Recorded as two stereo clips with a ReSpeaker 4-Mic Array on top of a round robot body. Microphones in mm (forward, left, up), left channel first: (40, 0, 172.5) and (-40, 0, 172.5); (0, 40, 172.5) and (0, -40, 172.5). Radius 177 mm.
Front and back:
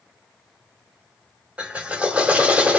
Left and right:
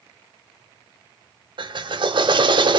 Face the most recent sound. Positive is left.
turn(degrees=-105)